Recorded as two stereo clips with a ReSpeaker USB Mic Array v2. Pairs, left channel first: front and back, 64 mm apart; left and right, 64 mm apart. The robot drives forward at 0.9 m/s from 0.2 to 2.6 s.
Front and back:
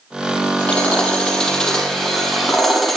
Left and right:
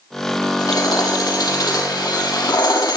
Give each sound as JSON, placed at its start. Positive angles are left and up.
{"t": 0.6, "sound": "hammering", "azimuth_deg": 70, "distance_m": 6.5}